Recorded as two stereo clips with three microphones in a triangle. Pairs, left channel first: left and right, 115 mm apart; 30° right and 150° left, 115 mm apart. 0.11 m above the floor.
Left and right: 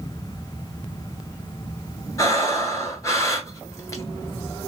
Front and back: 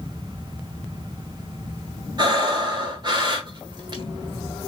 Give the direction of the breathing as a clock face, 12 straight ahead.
7 o'clock.